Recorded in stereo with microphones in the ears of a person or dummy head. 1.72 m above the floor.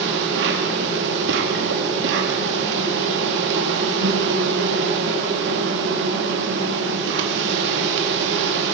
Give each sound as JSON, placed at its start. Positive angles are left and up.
{"t": 0.0, "sound": "an insect", "side_deg": -65, "distance_m": 3.0}